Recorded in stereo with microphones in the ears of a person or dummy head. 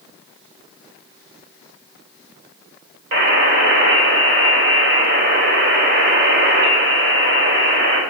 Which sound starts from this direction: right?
A buzzer, at 3.1 s.